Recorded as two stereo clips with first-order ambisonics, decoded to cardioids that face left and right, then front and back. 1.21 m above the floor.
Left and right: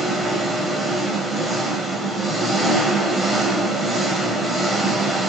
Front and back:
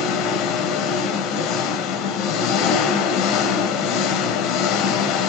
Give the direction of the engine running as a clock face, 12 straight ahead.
12 o'clock.